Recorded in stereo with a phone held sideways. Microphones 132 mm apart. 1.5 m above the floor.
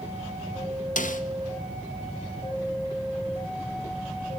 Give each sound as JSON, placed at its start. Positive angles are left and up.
{"t": 1.0, "sound": "a snare drum", "side_deg": 75, "distance_m": 0.8}